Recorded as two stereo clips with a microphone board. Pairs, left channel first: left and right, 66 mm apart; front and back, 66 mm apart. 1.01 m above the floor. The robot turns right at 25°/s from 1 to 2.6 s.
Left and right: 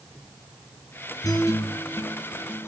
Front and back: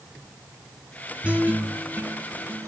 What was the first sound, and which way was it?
A guitar, 110° left.